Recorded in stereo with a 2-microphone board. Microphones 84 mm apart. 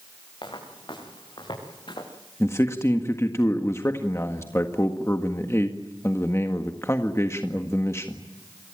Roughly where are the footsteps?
Left.